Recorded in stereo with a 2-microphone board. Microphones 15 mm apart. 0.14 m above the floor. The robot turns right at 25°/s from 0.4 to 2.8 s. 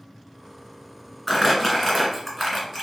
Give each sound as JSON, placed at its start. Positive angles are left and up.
{"t": 1.3, "sound": "crumpling", "side_deg": 5, "distance_m": 1.7}